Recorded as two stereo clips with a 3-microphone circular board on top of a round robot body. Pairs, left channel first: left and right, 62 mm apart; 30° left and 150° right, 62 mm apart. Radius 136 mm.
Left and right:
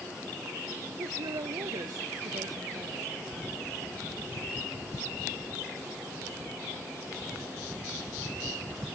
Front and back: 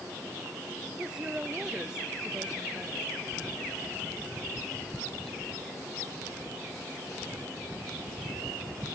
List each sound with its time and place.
1.0 s a woman speaking: 70° right